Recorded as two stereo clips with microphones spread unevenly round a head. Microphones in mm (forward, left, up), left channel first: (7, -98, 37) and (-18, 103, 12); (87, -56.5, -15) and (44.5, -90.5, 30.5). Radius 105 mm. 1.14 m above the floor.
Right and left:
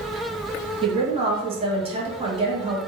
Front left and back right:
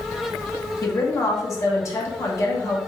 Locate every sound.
0.8 s a woman speaking: 35° left, 1.1 m